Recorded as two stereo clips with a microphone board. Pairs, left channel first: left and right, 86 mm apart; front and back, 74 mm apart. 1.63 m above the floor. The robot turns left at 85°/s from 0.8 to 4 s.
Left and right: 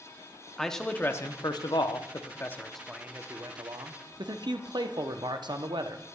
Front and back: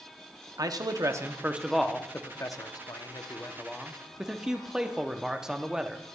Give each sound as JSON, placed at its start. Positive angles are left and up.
{"t": 0.6, "sound": "a man speaking", "azimuth_deg": 175, "distance_m": 0.7}